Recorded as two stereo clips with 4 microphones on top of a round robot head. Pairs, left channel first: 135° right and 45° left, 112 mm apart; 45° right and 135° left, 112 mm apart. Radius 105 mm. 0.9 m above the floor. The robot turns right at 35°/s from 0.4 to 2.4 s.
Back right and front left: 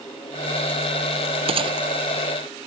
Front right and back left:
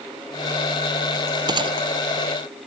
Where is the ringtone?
No ringtone in this recording.